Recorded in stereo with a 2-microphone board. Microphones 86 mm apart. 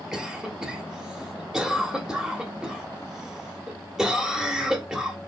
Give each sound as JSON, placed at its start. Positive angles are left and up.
{"t": 0.1, "sound": "a cough", "side_deg": -5, "distance_m": 1.3}